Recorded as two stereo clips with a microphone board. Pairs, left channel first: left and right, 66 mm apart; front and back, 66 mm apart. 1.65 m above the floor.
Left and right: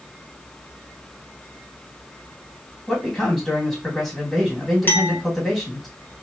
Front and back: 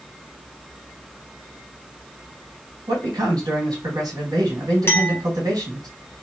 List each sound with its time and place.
2.9 s a man speaking: straight behind, 1.6 m
4.9 s a clink: 40° left, 1.0 m